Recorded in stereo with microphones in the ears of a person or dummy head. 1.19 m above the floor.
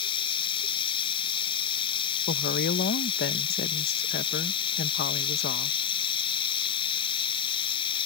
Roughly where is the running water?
Left.